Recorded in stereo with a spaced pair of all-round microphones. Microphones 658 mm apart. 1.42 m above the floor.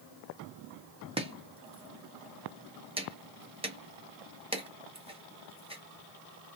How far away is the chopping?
About 0.6 m.